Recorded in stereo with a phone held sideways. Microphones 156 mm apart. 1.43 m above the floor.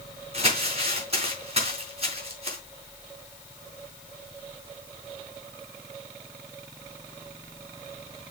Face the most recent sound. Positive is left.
turn(degrees=-40)  # may be behind; listen again after turning